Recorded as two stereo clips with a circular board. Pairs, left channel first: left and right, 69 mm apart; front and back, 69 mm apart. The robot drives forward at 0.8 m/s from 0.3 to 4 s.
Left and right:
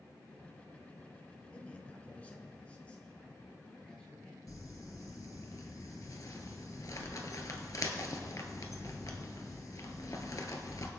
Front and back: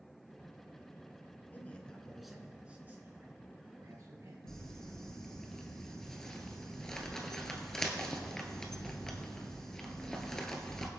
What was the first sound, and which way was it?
A man speaking, 35° left.